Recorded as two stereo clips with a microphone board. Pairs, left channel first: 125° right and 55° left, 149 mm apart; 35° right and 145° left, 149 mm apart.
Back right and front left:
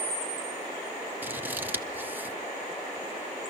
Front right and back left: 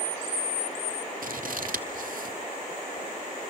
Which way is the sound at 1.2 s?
135° left.